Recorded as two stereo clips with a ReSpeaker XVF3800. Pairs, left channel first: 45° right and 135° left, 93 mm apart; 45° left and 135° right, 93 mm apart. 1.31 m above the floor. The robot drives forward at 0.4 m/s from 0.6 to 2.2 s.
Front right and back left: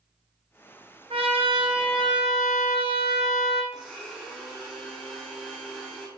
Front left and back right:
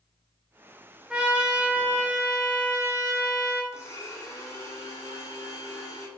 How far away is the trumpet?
About 0.6 m.